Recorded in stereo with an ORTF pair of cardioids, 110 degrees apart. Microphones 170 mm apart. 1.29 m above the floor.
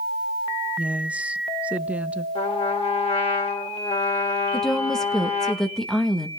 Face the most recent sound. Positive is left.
turn(degrees=5)